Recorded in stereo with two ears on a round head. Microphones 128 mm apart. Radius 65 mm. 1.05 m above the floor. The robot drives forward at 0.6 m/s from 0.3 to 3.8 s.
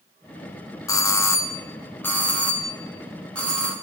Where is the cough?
No cough in this recording.